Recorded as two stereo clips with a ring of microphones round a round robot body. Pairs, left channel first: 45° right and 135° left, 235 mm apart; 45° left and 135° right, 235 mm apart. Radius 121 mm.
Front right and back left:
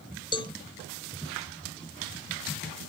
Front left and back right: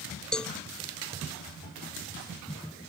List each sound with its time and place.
0.3 s a cowbell: 35° right